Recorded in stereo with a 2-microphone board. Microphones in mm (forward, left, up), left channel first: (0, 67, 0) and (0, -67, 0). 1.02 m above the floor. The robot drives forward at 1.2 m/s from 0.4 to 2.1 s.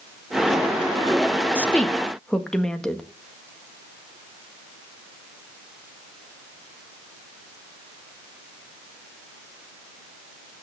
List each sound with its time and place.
1.6 s a woman speaking: 10° left (ahead or behind), 0.8 m; by 3.0 s 5° left (ahead or behind), 1.3 m